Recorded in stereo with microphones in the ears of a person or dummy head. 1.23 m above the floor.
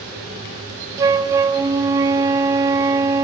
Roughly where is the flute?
Centre.